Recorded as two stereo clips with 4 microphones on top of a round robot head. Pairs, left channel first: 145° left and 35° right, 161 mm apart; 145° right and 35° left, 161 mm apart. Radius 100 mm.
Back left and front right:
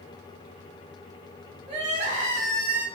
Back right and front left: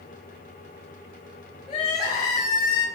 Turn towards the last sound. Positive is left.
turn(degrees=-85)